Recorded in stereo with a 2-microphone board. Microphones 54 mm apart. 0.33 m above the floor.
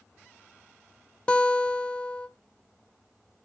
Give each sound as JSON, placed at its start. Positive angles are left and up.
{"t": 1.3, "sound": "a guitar", "side_deg": 20, "distance_m": 1.1}